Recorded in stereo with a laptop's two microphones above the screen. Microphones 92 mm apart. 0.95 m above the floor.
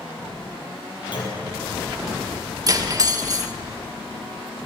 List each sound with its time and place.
1.1 s a clunk: 55° left (ahead or behind), 6 m
2.7 s cutlery clinking: 40° right (ahead or behind), 1.2 m